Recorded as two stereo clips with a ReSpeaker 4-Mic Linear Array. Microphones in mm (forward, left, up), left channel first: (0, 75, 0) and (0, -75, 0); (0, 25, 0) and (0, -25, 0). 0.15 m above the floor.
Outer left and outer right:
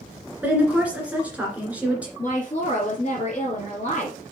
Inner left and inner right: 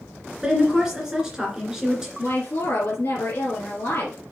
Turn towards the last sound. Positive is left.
turn(degrees=45)  # may be behind; listen again after turning